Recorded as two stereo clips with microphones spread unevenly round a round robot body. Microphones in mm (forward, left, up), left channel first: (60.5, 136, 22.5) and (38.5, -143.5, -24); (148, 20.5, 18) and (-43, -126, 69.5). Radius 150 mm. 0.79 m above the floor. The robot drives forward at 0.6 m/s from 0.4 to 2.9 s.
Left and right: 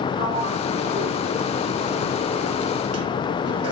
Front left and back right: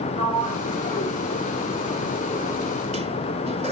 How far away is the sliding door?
About 2.5 m.